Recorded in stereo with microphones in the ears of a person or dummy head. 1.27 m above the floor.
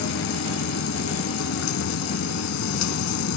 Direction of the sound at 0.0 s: 70° left (ahead or behind).